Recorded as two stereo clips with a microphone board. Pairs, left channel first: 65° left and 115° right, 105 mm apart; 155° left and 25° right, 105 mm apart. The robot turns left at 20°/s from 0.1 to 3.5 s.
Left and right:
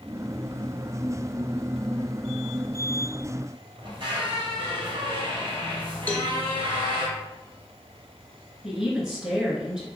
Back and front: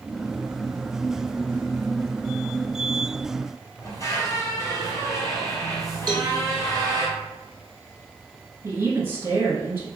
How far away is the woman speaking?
About 1.1 m.